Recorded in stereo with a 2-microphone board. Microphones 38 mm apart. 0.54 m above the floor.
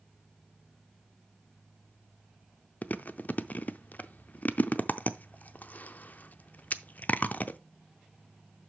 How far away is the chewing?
About 0.5 m.